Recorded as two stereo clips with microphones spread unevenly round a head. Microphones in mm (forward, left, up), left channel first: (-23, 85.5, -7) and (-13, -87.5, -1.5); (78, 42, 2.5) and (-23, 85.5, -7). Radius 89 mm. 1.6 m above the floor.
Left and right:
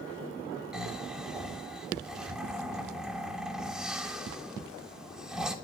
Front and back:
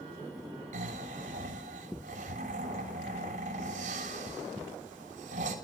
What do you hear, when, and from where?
0.7 s snoring: 170° right, 3 m